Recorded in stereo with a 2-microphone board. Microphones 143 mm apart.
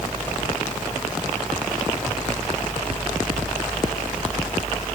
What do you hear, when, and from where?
Only background noise.